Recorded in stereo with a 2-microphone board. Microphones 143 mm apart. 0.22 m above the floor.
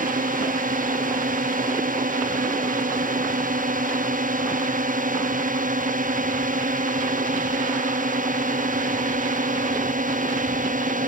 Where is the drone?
70° right (ahead or behind); by 11.1 s 65° right (ahead or behind).